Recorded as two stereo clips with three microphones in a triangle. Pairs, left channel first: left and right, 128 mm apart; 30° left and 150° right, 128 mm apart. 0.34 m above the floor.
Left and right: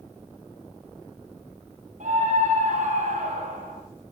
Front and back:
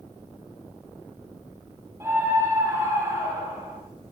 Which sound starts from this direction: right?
A scream, at 2.0 s.